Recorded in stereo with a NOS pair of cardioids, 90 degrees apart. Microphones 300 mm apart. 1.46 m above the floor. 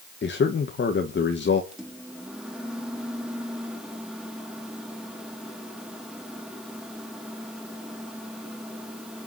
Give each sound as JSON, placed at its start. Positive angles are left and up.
{"t": 0.2, "sound": "a man speaking", "azimuth_deg": 40, "distance_m": 1.9}
{"t": 1.7, "sound": "a microwave", "azimuth_deg": 0, "distance_m": 3.0}